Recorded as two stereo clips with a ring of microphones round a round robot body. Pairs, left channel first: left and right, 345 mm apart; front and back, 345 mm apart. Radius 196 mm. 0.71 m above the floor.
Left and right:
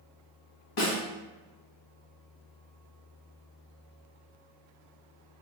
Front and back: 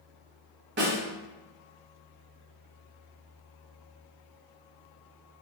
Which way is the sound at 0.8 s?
125° left.